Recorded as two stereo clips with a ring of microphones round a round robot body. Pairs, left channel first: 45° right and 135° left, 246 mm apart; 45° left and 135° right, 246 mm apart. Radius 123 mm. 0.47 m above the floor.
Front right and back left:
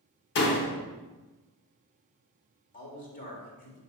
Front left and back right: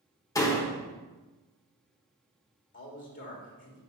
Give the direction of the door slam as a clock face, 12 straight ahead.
1 o'clock.